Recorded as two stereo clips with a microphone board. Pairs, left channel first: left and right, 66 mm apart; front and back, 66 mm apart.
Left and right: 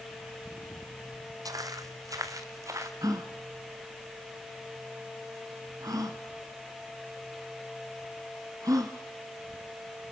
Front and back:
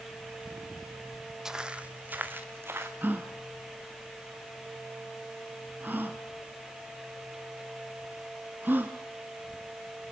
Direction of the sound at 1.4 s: 100° right.